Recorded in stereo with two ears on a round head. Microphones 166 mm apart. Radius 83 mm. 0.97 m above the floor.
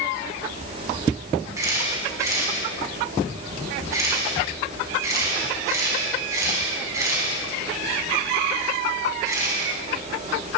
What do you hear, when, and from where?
1.6 s a camera shutter: 15° right (ahead or behind), 4.5 m